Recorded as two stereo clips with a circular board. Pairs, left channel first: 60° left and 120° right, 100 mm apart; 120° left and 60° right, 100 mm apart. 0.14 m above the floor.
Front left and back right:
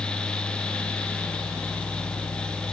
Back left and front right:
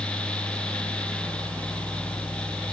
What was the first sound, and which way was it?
Only background noise.